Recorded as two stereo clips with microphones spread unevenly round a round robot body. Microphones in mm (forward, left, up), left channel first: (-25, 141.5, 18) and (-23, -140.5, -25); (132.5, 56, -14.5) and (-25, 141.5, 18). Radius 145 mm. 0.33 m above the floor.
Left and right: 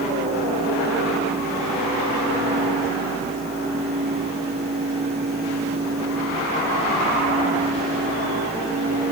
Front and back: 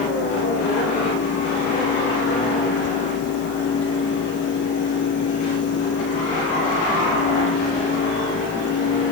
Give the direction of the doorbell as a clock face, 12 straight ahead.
No doorbell in this recording.